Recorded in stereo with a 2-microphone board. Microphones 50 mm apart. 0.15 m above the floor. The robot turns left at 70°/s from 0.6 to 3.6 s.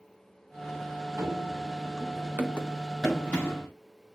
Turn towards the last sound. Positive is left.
turn(degrees=35)  # may be behind; listen again after turning